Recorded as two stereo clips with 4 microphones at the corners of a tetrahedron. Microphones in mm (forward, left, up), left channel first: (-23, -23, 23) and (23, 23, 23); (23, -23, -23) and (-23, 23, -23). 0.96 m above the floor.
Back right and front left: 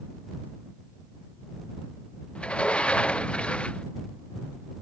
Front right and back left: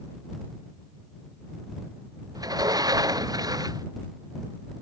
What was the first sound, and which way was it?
A sliding door, 150° left.